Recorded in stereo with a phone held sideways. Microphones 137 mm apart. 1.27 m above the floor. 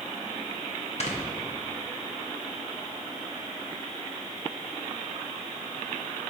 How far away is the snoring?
About 1.0 m.